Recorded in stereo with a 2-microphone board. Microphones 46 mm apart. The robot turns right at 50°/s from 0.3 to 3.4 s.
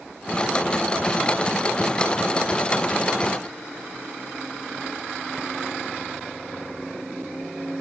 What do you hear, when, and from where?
Only background noise.